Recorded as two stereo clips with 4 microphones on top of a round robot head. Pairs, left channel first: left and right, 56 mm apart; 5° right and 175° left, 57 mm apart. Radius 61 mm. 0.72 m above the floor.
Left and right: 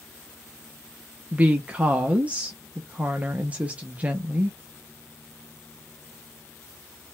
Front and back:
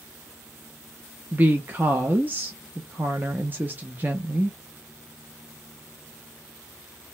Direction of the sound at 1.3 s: 145° right.